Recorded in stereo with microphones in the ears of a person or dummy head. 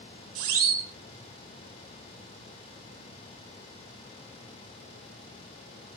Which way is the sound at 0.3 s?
90° right.